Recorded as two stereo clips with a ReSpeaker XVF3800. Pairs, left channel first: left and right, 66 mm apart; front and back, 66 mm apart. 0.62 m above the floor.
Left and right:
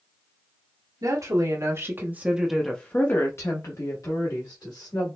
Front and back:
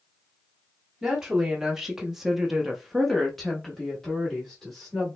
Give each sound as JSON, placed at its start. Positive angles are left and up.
{"t": 1.0, "sound": "a woman speaking", "azimuth_deg": -95, "distance_m": 1.2}